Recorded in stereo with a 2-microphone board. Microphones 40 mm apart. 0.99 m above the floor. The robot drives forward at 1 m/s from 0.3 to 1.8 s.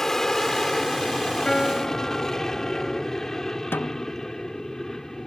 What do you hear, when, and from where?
0.0 s an aircraft: 10° left (ahead or behind)
1.4 s a piano: 15° left (ahead or behind)
3.7 s a snare drum: 70° left (ahead or behind)